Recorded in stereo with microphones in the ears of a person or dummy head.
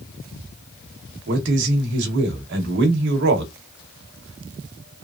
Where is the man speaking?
60° right (ahead or behind), 0.9 m.